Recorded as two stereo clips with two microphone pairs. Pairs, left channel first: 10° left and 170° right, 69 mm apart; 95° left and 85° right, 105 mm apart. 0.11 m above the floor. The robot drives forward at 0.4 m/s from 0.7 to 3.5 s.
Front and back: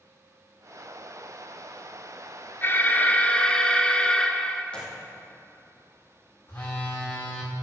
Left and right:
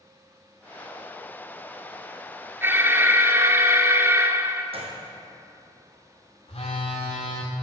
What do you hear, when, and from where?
2.6 s an alarm: 30° right, 1.0 m; by 4.6 s 50° right, 0.9 m
4.7 s a gunshot: 65° right, 3 m
6.5 s a phone buzzing: 70° left, 3 m